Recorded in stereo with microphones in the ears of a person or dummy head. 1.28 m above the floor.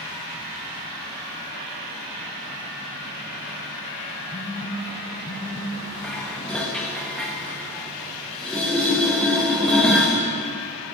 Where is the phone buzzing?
10° left (ahead or behind), 1.6 m.